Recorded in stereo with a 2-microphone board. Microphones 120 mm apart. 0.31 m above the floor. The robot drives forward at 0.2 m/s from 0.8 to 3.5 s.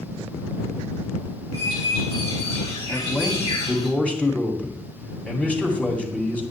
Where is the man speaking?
10° left (ahead or behind), 2.5 m.